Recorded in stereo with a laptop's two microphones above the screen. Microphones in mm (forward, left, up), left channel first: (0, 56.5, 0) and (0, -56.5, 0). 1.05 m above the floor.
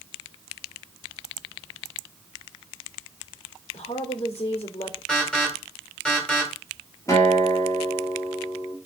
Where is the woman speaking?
60° left (ahead or behind), 2.5 m.